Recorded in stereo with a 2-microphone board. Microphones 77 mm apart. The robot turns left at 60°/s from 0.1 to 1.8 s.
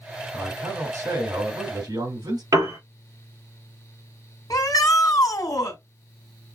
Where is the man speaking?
25° right, 3.5 m; by 2.4 s 110° right, 3.5 m.